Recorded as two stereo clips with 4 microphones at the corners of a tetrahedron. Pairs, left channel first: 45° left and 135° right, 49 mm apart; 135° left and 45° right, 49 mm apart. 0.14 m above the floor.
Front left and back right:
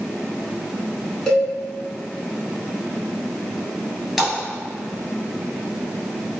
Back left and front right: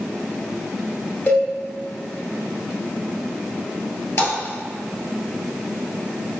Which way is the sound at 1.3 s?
115° left.